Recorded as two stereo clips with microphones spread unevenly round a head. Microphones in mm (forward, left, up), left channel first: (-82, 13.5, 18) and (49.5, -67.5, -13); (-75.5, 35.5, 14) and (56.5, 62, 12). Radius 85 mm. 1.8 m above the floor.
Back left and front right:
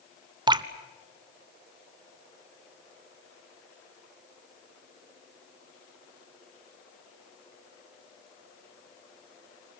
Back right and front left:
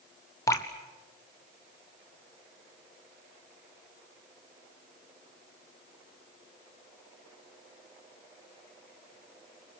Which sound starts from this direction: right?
Dripping, at 0.5 s.